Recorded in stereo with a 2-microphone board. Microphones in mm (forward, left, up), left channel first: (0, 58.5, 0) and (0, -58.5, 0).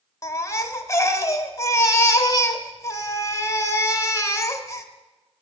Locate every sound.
0.2 s a baby crying: 25° left (ahead or behind), 0.7 m